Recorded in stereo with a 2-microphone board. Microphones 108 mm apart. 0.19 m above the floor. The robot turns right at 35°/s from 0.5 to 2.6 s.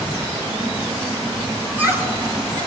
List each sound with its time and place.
1.6 s laughter: 165° right, 3 m; by 2.7 s 130° right, 3 m